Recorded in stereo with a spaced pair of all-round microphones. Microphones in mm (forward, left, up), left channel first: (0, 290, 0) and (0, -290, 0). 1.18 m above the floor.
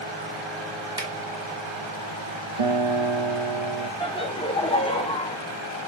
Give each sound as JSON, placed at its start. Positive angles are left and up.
{"t": 1.0, "sound": "a finger snap", "side_deg": -5, "distance_m": 3.0}
{"t": 2.6, "sound": "a guitar", "side_deg": -65, "distance_m": 1.0}
{"t": 4.0, "sound": "laughter", "side_deg": 10, "distance_m": 0.8}